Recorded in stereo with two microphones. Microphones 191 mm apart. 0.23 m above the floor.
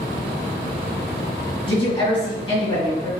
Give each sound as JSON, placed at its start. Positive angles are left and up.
{"t": 1.7, "sound": "a woman speaking", "side_deg": 25, "distance_m": 1.9}